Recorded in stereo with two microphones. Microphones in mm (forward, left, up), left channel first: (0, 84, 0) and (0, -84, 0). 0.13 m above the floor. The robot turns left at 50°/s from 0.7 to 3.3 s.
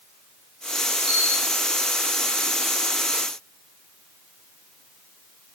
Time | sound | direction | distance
1.1 | a camera shutter | 75° right (ahead or behind) | 3 m